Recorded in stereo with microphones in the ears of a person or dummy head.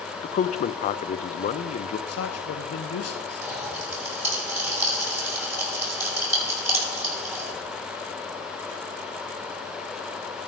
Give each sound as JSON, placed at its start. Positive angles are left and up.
{"t": 0.2, "sound": "a man speaking", "side_deg": 40, "distance_m": 0.6}
{"t": 2.1, "sound": "a man speaking", "side_deg": 80, "distance_m": 1.1}
{"t": 3.4, "sound": "a pop", "side_deg": -15, "distance_m": 7.0}